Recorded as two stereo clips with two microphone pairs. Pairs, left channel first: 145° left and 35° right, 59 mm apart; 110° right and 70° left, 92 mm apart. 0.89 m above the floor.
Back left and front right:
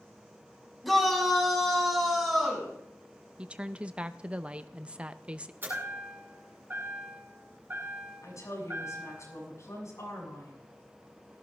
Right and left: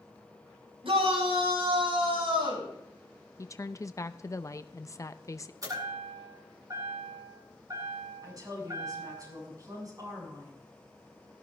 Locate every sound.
0.8 s a shout: 55° left, 5.5 m; by 2.7 s 50° left, 6.5 m
3.4 s a woman speaking: 95° right, 0.5 m
5.6 s a chime: 20° left, 8 m
8.2 s a woman speaking: 115° left, 7 m